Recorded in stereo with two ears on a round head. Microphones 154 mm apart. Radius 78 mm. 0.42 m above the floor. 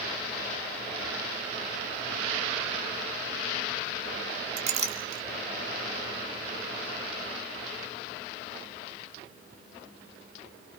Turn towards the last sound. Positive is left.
turn(degrees=-45)  # may be behind; listen again after turning